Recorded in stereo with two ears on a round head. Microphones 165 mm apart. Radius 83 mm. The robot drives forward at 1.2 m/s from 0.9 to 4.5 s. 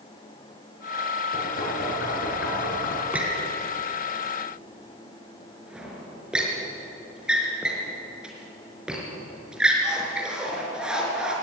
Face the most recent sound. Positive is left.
turn(degrees=-5)  # may be behind; listen again after turning